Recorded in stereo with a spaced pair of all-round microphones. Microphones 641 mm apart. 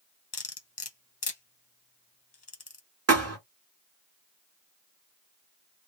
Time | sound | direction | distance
0.3 | cutlery clinking | 40° left (ahead or behind) | 0.9 m
3.1 | a thud | 25° right (ahead or behind) | 1.4 m